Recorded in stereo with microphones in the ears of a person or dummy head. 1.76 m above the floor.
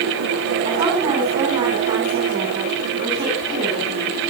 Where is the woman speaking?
20° right (ahead or behind), 7.5 m.